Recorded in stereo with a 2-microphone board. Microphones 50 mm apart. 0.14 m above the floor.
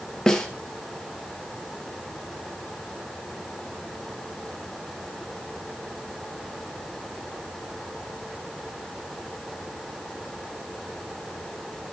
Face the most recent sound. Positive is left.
turn(degrees=10)  # may be behind; listen again after turning